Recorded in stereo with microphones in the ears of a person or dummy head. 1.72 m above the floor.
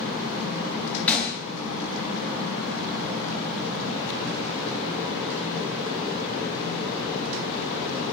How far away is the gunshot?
About 0.5 m.